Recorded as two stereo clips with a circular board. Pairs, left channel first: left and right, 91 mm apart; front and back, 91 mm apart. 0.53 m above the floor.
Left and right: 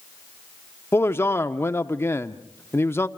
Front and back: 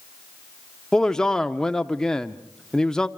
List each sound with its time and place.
0.9 s a man speaking: 75° left, 0.7 m